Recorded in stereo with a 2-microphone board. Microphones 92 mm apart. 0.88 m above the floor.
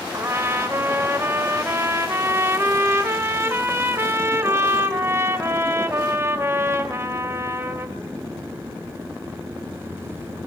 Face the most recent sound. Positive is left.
turn(degrees=-25)  # may be behind; listen again after turning